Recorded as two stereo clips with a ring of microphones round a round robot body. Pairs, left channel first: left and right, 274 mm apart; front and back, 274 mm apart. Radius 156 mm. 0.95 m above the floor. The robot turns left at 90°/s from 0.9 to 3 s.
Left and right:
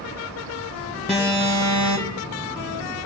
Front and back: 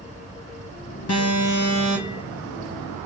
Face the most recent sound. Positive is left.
turn(degrees=-170)